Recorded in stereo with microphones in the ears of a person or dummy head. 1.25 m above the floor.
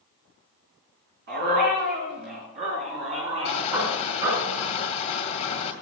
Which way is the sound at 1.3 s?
50° right (ahead or behind).